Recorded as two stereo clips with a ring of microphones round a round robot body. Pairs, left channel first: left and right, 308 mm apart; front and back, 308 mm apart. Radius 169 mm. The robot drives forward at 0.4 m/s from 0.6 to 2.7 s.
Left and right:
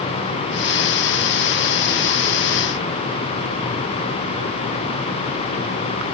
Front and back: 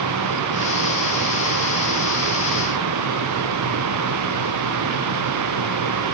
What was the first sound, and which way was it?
Only background noise.